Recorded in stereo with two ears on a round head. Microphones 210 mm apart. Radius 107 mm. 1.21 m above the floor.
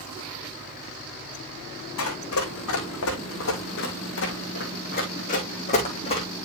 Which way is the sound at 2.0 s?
65° left (ahead or behind).